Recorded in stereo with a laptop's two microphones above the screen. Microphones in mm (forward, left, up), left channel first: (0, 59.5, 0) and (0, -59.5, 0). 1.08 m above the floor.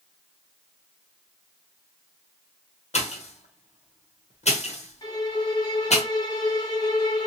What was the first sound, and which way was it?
A pop, 65° left (ahead or behind).